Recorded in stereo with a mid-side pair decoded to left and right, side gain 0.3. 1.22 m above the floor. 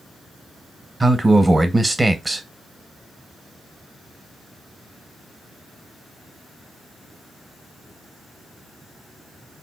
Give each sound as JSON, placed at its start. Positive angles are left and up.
{"t": 1.0, "sound": "a man speaking", "azimuth_deg": -25, "distance_m": 0.9}